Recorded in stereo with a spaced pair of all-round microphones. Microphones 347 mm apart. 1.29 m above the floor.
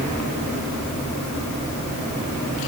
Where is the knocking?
No knocking in this recording.